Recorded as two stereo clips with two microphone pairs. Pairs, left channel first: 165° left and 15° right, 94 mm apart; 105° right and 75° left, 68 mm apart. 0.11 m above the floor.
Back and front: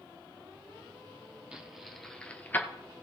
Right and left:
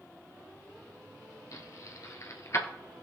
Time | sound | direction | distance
1.5 | keys jangling | 95° right | 1.7 m